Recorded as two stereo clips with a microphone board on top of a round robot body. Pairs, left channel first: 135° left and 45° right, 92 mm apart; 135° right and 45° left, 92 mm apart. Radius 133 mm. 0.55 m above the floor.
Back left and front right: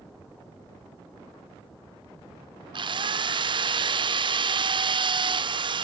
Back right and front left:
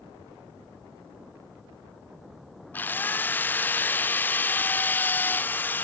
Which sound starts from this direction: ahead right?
A drill, at 2.7 s.